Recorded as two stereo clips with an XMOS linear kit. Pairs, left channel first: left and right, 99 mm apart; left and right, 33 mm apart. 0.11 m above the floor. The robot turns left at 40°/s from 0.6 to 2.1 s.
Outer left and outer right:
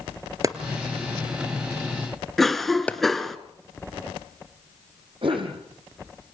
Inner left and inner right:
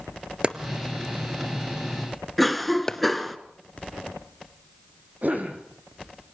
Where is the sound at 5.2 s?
55° right (ahead or behind), 4.5 m.